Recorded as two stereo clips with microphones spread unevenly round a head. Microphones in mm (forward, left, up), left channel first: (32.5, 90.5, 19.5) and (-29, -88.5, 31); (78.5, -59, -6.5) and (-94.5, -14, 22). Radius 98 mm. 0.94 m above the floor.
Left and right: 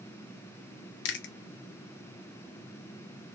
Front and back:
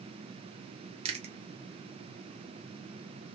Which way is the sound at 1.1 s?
100° left.